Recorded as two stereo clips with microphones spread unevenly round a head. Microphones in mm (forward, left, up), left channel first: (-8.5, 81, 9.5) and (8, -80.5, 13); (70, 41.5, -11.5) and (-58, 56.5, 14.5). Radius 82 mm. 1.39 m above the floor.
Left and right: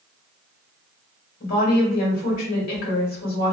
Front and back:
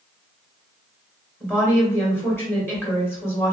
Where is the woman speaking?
65° left, 1.7 m.